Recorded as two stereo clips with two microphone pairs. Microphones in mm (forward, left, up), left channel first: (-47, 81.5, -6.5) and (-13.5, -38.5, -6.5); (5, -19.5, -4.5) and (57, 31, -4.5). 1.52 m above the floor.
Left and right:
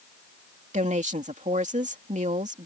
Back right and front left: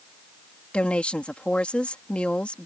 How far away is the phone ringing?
No phone ringing in this recording.